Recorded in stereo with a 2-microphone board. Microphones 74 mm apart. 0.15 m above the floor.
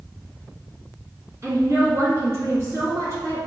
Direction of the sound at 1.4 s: 40° right (ahead or behind).